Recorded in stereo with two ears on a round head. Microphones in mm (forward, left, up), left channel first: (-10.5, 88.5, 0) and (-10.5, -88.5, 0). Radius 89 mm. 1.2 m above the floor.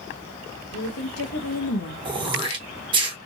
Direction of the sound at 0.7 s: 70° left (ahead or behind).